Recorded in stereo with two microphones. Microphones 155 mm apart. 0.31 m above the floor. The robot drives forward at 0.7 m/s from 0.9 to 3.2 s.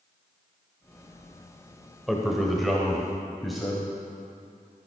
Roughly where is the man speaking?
Centre.